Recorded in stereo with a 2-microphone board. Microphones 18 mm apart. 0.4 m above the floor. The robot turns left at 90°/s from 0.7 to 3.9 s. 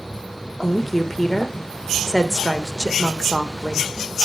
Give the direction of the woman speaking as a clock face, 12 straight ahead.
5 o'clock.